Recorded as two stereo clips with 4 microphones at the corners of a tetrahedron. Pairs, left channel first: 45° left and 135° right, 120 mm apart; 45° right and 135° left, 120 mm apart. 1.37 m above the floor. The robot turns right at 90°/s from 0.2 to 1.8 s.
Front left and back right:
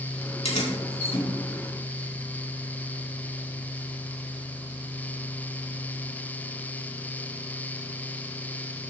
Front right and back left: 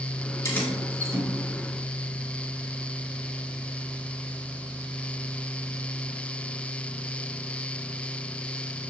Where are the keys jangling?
20° left, 3.5 m; by 1.3 s 95° left, 3.5 m.